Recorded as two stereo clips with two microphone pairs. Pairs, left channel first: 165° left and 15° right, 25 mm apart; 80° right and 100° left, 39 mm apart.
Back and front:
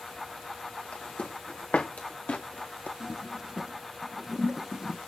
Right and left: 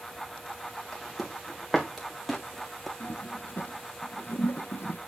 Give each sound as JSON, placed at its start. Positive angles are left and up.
{"t": 0.9, "sound": "footsteps", "azimuth_deg": -175, "distance_m": 3.0}
{"t": 3.0, "sound": "a toilet flushing", "azimuth_deg": -80, "distance_m": 1.2}